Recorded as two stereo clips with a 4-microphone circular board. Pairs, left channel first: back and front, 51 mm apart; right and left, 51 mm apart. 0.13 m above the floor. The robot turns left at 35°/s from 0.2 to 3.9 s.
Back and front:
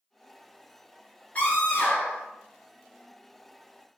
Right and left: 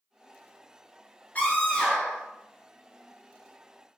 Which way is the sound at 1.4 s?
135° right.